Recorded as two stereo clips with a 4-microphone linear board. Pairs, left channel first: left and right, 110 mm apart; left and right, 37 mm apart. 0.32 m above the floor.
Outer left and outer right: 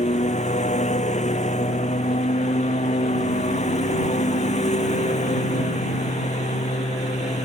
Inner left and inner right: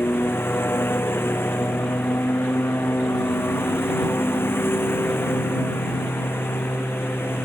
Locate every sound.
0.0 s a lawn mower: 85° left